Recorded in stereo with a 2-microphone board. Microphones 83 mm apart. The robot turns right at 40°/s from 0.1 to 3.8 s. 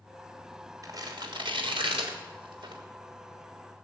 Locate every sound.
0.8 s tearing paper: 40° right (ahead or behind), 3 m; by 2.8 s 60° right (ahead or behind), 3 m